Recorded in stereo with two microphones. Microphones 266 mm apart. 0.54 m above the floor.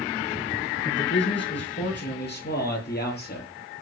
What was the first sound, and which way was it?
A man speaking, 45° left (ahead or behind).